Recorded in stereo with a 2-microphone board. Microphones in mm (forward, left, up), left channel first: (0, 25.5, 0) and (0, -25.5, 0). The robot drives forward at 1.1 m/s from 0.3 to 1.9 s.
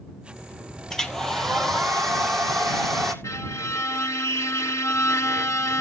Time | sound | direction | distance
0.9 | a hair dryer | 10° left (ahead or behind) | 1.0 m
3.2 | a violin | 65° left (ahead or behind) | 0.8 m